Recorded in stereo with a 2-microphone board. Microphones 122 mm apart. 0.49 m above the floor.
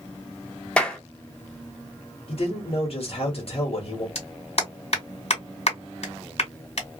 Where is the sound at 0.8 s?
10° left (ahead or behind), 0.6 m.